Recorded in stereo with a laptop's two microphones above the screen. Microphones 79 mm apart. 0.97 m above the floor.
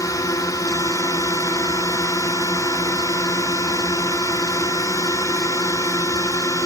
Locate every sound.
0.0 s a drone: 45° left (ahead or behind)